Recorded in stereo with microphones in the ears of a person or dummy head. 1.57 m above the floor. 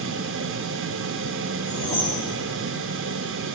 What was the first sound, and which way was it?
A fan, 60° right (ahead or behind).